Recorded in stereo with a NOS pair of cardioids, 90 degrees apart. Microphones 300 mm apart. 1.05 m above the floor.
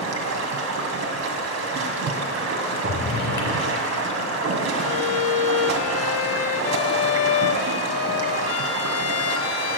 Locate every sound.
0.0 s running water: 60° right, 2 m
2.8 s a drawer: 40° left, 5 m
4.8 s a violin: 55° left, 1.0 m